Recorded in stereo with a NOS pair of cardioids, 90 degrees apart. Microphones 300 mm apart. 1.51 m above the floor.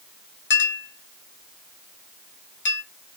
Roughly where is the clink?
Ahead left.